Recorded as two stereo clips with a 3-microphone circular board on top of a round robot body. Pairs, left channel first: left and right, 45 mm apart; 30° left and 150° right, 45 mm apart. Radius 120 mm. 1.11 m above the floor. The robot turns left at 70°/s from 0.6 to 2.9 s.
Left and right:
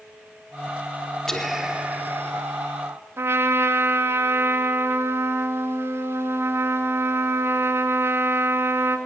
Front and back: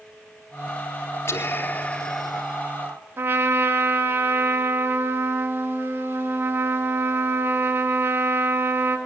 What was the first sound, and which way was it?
Whispering, 10° left.